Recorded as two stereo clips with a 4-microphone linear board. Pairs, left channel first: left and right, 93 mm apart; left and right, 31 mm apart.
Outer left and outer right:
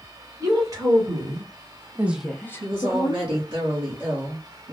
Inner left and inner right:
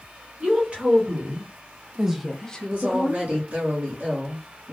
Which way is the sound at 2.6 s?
70° right (ahead or behind).